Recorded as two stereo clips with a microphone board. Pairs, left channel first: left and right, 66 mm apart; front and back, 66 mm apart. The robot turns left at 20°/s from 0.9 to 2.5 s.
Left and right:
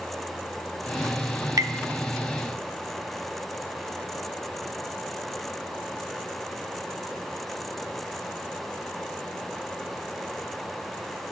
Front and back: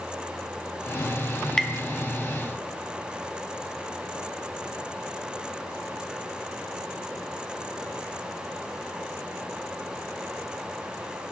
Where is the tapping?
80° right, 0.6 m.